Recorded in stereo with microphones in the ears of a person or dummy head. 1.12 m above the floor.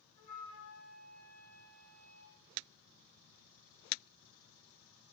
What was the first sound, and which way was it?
A flute, 50° left (ahead or behind).